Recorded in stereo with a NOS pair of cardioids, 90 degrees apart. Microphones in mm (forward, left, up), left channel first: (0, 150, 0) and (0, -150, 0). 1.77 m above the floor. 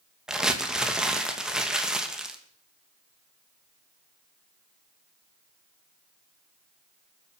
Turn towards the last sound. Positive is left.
turn(degrees=0)